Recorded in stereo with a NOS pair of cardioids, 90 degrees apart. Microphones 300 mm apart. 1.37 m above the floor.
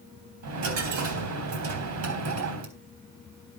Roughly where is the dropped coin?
Right.